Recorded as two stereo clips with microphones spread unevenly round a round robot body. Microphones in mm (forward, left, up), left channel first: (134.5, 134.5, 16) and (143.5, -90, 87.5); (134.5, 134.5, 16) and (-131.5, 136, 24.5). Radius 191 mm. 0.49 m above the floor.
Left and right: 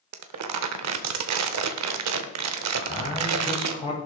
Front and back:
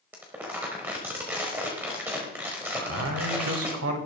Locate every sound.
0.1 s crumpling: 95° right, 0.9 m
2.7 s a man speaking: 155° left, 2.5 m